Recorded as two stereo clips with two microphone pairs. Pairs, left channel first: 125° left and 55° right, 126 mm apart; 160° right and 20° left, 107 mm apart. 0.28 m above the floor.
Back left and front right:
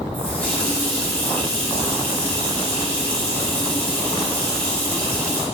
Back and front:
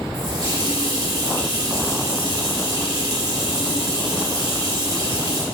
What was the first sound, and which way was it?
A running tap, 50° left.